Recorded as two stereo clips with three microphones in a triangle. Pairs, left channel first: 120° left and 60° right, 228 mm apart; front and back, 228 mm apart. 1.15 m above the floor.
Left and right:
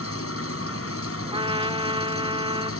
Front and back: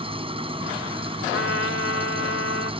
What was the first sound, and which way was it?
An engine running, 115° left.